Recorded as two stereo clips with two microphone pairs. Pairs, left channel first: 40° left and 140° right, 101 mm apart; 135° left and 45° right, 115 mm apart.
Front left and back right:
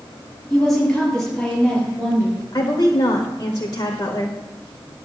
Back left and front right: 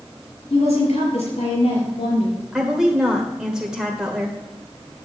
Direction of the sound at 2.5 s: 35° left.